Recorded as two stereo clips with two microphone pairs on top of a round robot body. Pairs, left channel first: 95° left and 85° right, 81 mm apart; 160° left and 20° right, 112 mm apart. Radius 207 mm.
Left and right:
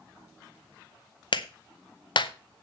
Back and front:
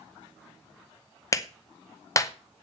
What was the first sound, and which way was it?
A clap, 100° left.